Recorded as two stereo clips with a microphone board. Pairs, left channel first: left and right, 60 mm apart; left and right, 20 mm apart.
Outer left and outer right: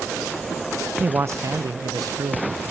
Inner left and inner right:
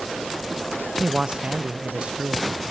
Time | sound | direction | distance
1.0 | a man speaking | 35° right (ahead or behind) | 0.5 m